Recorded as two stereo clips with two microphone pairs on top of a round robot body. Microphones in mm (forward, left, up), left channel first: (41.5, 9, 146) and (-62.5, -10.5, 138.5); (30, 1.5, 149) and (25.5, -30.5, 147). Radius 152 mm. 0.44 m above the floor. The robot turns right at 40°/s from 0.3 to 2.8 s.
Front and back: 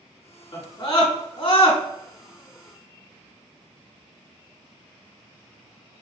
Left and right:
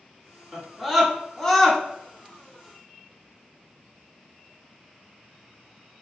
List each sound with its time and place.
0.5 s a scream: 35° right, 1.6 m; by 1.8 s 15° left, 1.6 m